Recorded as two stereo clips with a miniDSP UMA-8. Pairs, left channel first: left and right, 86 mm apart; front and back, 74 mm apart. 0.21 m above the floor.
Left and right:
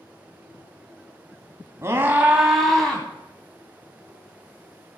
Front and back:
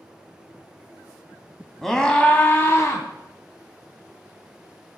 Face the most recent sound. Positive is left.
turn(degrees=20)